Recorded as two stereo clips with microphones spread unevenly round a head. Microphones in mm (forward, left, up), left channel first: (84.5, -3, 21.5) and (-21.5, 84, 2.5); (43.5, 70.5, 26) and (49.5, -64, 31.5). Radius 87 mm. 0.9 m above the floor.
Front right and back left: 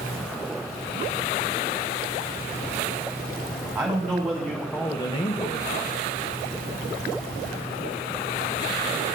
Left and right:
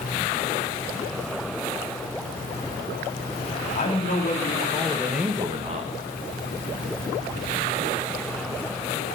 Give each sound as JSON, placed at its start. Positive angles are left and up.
{"t": 3.8, "sound": "a man speaking", "azimuth_deg": 65, "distance_m": 2.5}